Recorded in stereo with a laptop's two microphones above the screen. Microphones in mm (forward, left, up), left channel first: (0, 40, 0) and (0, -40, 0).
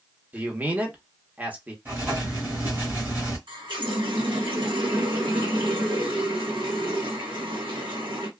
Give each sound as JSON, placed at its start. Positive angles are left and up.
{"t": 0.3, "sound": "a man speaking", "side_deg": -20, "distance_m": 1.0}
{"t": 1.9, "sound": "writing", "side_deg": -25, "distance_m": 1.5}
{"t": 3.5, "sound": "a running tap", "side_deg": -80, "distance_m": 1.2}